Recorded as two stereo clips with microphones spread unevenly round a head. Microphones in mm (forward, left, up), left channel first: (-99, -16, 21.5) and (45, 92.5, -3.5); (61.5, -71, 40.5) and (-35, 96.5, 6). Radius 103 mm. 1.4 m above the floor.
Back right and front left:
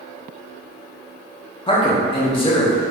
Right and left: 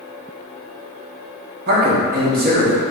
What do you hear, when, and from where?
1.7 s a man speaking: 155° left, 0.9 m